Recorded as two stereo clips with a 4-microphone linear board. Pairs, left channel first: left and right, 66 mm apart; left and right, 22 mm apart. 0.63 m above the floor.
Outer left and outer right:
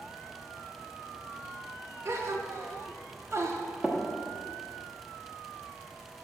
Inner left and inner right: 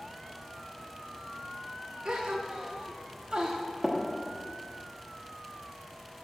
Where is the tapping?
15° right (ahead or behind), 0.8 m.